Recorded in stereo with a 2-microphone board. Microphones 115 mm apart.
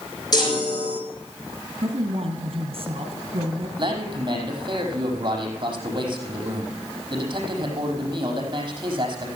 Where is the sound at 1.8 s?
50° right (ahead or behind), 3 m.